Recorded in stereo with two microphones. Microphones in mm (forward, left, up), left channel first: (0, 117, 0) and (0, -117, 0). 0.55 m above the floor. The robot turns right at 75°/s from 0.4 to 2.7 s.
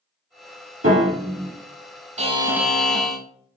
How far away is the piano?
About 1.8 m.